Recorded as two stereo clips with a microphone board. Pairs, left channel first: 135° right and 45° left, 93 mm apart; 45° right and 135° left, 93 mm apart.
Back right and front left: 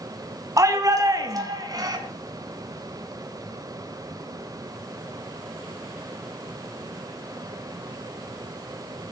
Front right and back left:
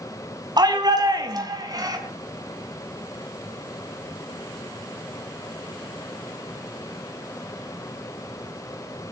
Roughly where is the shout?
Left.